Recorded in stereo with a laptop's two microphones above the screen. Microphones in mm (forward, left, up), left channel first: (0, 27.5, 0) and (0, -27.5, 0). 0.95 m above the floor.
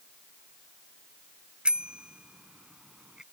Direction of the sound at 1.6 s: 20° right (ahead or behind).